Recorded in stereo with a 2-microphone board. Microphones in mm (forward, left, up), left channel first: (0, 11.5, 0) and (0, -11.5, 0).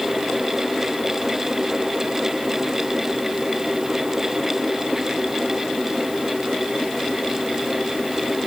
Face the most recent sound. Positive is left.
No sound to turn to.